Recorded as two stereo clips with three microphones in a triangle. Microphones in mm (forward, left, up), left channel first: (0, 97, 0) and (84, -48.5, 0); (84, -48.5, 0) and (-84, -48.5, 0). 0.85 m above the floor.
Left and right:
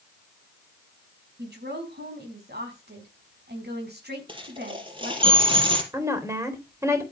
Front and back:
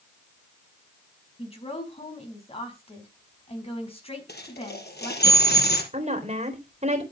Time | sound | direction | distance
1.4 | a woman speaking | 55° right | 5.5 m
4.3 | a dropped coin | straight ahead | 4 m
5.9 | a woman speaking | 130° right | 3.5 m